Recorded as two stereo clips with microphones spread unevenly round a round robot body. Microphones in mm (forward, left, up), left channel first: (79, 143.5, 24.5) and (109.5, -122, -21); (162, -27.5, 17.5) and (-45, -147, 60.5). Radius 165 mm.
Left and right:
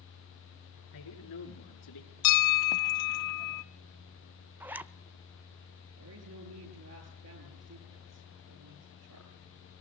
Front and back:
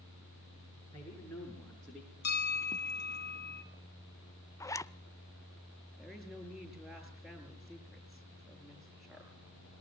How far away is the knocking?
I don't hear knocking.